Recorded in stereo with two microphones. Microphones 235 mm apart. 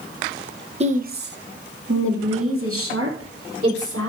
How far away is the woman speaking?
About 0.8 m.